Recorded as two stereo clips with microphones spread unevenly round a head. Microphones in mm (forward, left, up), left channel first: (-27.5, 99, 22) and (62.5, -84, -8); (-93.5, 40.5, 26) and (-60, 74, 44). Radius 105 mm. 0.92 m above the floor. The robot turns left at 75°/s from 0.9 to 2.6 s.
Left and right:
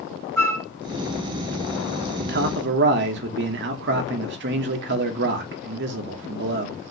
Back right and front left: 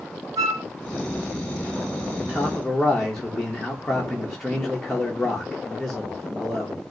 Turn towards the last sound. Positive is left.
turn(degrees=-60)